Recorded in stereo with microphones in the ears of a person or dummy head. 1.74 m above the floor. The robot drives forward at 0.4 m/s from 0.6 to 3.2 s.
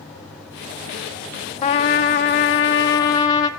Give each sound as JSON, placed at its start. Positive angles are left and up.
{"t": 1.6, "sound": "a trumpet", "side_deg": 30, "distance_m": 0.6}